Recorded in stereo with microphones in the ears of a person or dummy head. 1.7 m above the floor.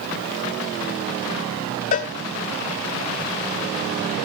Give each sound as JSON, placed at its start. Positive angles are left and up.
{"t": 1.9, "sound": "a cowbell", "side_deg": 35, "distance_m": 0.7}